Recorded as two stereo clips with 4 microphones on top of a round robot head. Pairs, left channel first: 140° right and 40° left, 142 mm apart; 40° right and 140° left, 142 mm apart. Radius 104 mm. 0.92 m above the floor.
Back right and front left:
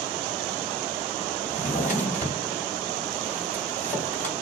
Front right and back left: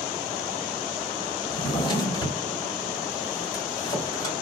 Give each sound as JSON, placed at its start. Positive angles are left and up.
{"t": 1.5, "sound": "a drawer", "azimuth_deg": -105, "distance_m": 2.0}